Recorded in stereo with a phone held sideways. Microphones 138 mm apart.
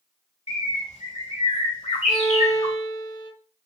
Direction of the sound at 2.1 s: 15° right (ahead or behind).